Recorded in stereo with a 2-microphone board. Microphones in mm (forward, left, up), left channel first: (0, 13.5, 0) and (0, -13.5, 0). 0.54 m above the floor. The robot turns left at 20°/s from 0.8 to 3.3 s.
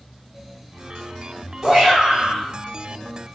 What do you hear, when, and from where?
1.6 s a shout: 25° right (ahead or behind), 1.3 m; by 2.5 s 15° right (ahead or behind), 1.3 m